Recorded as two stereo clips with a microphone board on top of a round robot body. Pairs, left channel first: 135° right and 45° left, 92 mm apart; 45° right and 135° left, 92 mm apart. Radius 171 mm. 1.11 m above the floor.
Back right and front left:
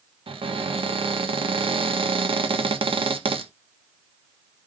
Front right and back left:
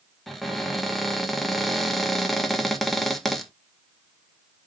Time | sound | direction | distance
0.3 | a cupboard door | 45° left | 1.0 m